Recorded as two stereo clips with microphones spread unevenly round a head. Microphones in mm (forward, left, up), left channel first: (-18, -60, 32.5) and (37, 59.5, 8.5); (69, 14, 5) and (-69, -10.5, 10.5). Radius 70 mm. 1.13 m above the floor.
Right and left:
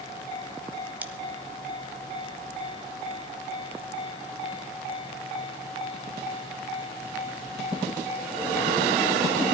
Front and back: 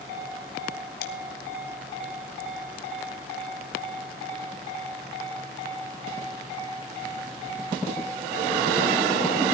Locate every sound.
1.0 s scissors: 10° right, 1.7 m